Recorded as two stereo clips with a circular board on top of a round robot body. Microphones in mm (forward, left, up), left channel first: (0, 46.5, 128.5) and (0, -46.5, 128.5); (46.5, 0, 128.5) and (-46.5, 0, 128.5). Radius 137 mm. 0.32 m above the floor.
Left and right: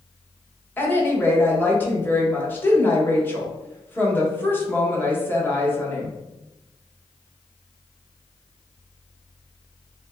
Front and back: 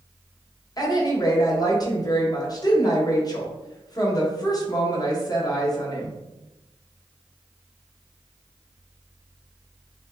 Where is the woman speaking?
30° left, 1.2 m.